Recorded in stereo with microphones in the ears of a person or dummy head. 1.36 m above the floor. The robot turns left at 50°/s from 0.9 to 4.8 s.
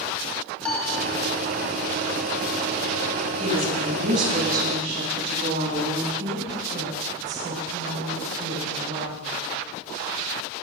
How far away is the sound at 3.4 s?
About 9.5 m.